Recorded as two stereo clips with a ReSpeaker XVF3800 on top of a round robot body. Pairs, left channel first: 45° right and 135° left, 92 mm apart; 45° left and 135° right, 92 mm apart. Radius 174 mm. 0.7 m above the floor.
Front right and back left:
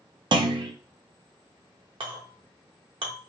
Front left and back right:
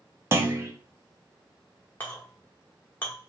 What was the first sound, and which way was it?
A clunk, 165° left.